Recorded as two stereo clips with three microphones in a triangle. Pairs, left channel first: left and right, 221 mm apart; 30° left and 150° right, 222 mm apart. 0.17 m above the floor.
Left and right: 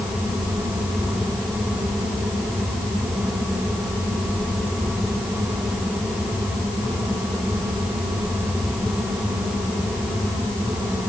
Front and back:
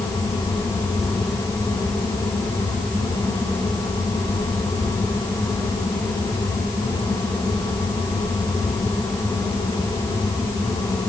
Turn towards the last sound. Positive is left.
No sound to turn to.